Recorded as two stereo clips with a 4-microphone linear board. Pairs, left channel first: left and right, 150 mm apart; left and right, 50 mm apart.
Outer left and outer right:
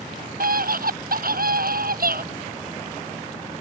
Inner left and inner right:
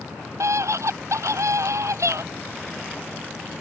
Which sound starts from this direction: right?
A scream, at 0.4 s.